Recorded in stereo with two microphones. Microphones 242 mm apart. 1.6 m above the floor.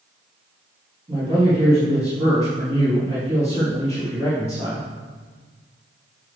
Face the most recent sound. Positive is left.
turn(degrees=-25)  # may be behind; listen again after turning